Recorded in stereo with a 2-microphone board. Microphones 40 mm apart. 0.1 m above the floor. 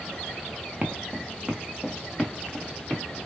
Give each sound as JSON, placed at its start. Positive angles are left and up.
{"t": 0.8, "sound": "footsteps", "side_deg": -35, "distance_m": 0.7}